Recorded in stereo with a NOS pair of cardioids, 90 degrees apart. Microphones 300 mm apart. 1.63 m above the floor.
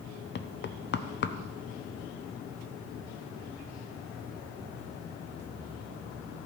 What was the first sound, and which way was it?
Knocking, 40° left.